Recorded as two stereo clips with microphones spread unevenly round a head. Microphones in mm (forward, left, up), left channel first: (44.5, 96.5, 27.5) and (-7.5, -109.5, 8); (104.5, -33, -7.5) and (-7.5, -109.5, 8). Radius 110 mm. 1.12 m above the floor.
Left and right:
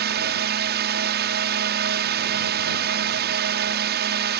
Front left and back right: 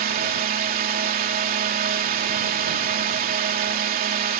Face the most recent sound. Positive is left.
turn(degrees=-145)